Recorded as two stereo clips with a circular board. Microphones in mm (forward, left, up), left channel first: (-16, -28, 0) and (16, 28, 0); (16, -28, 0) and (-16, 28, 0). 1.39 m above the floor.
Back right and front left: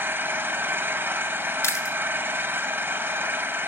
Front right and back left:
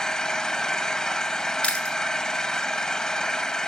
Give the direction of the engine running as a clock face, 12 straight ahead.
11 o'clock.